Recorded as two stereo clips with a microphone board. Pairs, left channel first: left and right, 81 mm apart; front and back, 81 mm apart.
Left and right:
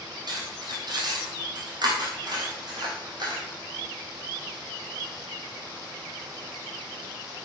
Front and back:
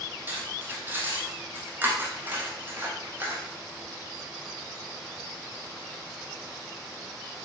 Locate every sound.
0.3 s cutlery clinking: 115° right, 2.5 m